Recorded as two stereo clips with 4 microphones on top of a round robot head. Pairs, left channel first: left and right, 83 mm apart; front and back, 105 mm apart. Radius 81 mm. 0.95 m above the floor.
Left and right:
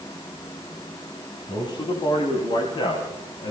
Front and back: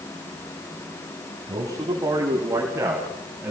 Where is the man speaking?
120° left, 6.5 m; by 3.5 s 105° left, 6.5 m.